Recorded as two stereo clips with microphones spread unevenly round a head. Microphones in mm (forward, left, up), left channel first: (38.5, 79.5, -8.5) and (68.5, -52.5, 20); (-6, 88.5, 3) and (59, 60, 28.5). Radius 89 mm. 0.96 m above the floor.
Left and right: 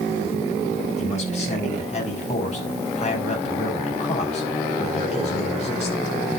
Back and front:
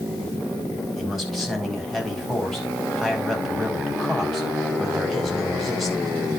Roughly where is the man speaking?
Ahead left.